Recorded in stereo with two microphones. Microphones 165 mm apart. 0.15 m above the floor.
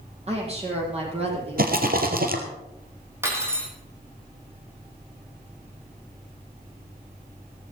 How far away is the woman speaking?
About 6.5 m.